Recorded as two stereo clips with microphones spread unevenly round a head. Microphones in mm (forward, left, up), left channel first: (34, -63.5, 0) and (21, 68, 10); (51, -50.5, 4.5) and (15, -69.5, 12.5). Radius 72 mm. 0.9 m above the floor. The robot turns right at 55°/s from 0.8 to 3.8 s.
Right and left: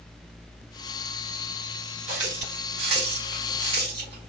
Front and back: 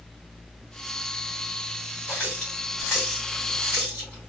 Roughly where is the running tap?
Ahead left.